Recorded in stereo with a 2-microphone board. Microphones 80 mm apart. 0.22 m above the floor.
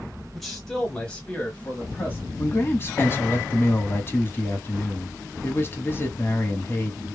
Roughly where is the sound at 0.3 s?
Centre.